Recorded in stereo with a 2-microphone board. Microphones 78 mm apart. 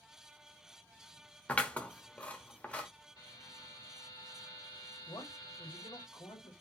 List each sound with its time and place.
1.5 s scissors: 15° left (ahead or behind), 1.1 m
3.2 s a buzzer: 60° left (ahead or behind), 2.0 m
5.1 s a man speaking: 60° left (ahead or behind), 2.5 m